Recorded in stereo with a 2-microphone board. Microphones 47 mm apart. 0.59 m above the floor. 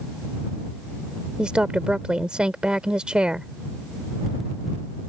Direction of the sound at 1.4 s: 20° right (ahead or behind).